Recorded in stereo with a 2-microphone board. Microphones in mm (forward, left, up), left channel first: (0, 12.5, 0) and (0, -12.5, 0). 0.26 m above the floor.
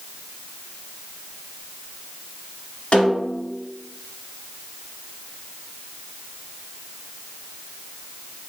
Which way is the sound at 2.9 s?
50° left (ahead or behind).